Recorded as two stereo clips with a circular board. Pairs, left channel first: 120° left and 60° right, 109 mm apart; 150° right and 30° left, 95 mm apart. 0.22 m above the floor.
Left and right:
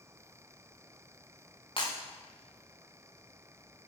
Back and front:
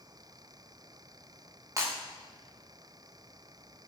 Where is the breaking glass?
85° left, 6 m.